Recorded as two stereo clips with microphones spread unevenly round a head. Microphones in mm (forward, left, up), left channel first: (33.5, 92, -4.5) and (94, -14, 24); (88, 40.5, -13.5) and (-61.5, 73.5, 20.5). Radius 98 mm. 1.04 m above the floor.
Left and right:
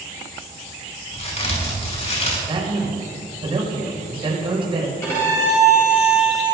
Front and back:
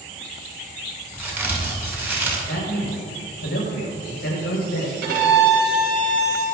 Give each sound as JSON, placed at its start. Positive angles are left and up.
{"t": 1.1, "sound": "a crack", "azimuth_deg": 90, "distance_m": 6.0}
{"t": 2.5, "sound": "a man speaking", "azimuth_deg": -15, "distance_m": 5.5}
{"t": 5.0, "sound": "a violin", "azimuth_deg": -160, "distance_m": 4.5}